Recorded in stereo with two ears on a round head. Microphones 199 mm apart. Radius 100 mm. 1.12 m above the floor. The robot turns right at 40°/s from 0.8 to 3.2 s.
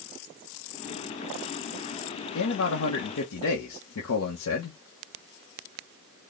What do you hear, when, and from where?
2.4 s a man speaking: 70° left, 0.9 m; by 4.8 s 100° left, 0.9 m